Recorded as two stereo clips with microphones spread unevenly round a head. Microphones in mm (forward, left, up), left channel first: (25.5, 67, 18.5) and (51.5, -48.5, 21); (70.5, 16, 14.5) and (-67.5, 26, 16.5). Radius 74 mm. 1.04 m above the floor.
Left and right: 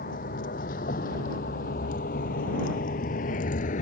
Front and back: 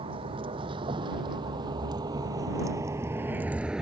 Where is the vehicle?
125° left; by 3.8 s 90° left.